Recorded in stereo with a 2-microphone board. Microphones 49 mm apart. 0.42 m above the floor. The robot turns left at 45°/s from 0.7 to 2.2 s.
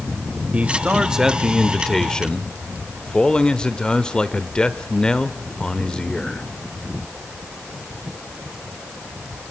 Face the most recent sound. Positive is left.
turn(degrees=155)